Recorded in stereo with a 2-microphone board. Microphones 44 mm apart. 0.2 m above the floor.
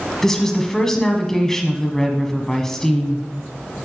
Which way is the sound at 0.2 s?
10° left (ahead or behind).